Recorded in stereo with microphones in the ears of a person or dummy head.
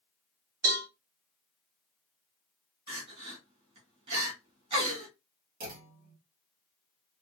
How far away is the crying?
About 1.4 m.